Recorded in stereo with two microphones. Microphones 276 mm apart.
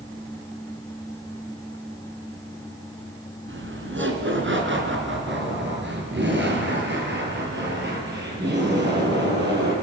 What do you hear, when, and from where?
3.5 s laughter: 45° right (ahead or behind), 2.5 m; by 9.7 s 35° right (ahead or behind), 6.5 m